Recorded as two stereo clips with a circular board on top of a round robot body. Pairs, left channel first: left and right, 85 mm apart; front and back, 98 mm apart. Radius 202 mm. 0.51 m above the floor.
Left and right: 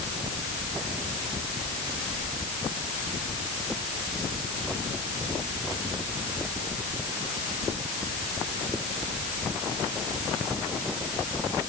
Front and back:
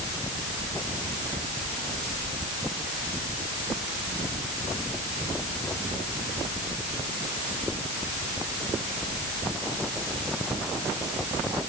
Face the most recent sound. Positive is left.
No sound to turn to.